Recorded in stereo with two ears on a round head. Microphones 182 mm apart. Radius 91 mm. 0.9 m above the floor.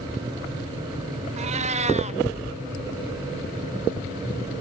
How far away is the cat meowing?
About 0.7 m.